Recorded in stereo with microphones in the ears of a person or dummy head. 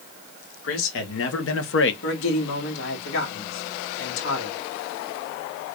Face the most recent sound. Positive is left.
turn(degrees=85)